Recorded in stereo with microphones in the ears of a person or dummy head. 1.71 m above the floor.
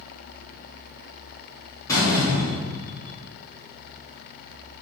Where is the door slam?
20° left (ahead or behind), 2 m.